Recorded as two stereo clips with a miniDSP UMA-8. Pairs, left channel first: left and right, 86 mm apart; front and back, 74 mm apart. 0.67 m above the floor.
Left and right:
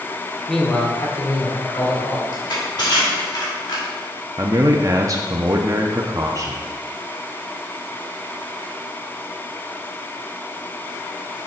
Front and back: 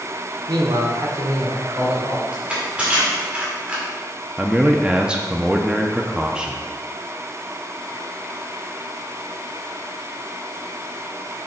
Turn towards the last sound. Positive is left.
turn(degrees=-105)